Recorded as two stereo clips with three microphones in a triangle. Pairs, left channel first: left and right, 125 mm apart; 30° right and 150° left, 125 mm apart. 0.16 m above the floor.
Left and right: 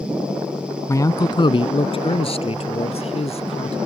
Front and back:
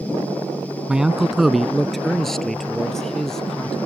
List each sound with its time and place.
0.9 s a man speaking: 75° left; by 3.8 s 55° left